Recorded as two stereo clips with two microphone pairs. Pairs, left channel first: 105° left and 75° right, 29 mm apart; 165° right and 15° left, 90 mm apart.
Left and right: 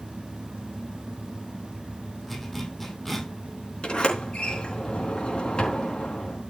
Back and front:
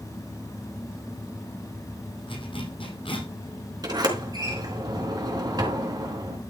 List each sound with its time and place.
2.3 s a zipper: 170° right, 3 m
3.8 s a sliding door: 55° left, 4 m